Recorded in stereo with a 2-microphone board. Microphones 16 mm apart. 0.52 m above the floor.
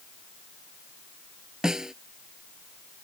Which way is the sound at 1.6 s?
35° right (ahead or behind).